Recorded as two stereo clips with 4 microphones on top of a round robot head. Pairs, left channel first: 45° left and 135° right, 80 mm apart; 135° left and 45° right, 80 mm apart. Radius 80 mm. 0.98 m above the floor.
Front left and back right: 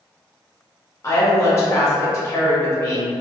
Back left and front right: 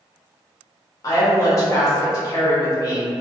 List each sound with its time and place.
1.0 s a woman speaking: 95° left, 1.2 m